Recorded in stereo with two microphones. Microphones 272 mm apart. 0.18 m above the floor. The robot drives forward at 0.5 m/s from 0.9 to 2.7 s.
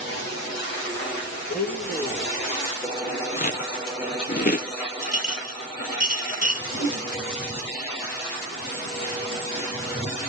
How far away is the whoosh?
About 6.5 m.